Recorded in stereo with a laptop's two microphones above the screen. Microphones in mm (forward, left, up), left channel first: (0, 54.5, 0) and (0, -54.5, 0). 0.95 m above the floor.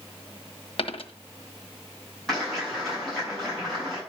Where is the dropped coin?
60° left (ahead or behind), 1.3 m.